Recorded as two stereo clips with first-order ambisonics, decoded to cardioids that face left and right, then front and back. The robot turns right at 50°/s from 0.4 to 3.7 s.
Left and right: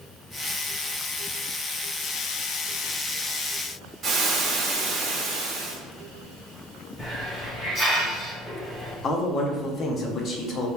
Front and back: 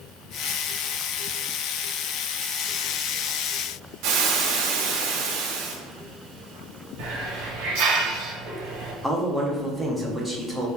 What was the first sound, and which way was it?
Frying, 155° right.